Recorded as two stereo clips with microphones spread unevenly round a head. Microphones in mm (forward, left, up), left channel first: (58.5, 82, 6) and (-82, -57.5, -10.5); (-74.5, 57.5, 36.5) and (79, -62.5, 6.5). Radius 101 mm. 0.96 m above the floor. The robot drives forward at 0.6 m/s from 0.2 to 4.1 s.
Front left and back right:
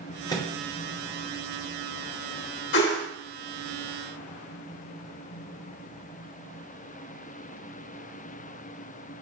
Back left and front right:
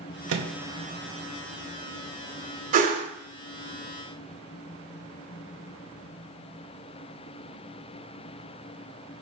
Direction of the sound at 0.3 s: 30° right.